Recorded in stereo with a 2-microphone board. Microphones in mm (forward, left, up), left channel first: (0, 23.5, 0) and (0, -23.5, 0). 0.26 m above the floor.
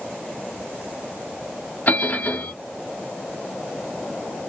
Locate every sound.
1.9 s a bell: 40° left (ahead or behind), 0.7 m